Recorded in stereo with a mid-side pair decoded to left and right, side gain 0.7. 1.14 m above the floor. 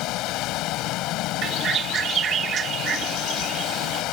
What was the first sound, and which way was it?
Running water, 60° left.